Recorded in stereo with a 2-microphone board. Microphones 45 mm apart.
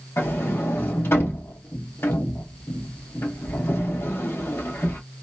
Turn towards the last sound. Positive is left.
turn(degrees=65)  # may be behind; listen again after turning